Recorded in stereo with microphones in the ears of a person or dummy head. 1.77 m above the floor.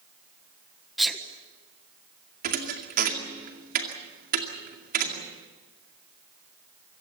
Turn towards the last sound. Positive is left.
turn(degrees=-45)  # may be behind; listen again after turning